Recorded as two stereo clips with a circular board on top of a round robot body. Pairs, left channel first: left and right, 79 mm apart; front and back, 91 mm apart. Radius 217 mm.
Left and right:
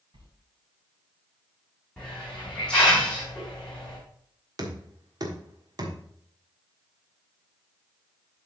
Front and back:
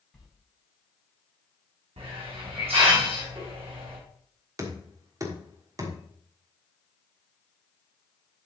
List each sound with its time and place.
0.1 s a sliding door: 85° right, 3.5 m
2.0 s a hiss: 170° left, 4.5 m
4.6 s knocking: 125° right, 1.6 m